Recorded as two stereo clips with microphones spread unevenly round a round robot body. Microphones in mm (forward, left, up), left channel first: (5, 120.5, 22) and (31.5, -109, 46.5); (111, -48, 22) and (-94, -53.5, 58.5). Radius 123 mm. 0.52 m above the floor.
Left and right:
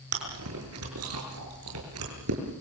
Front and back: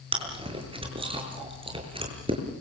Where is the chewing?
115° right, 7 m.